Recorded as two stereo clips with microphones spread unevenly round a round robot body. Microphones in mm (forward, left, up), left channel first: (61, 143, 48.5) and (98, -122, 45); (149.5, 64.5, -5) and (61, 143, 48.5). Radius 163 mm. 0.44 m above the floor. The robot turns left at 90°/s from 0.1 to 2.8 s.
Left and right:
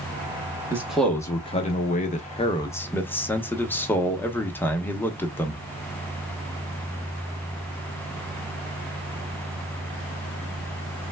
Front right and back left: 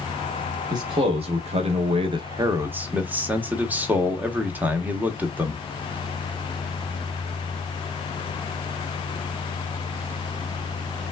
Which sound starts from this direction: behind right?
A man speaking, at 0.7 s.